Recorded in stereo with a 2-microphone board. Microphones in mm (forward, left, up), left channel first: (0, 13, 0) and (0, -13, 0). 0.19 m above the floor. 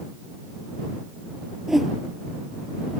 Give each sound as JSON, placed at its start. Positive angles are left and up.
{"t": 1.7, "sound": "a whoosh", "side_deg": -10}